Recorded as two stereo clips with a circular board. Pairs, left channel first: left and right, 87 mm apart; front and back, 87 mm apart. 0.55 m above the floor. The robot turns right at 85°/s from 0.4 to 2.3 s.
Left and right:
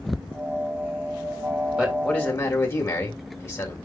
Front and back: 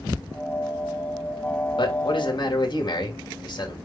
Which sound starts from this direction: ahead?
A man speaking, at 1.8 s.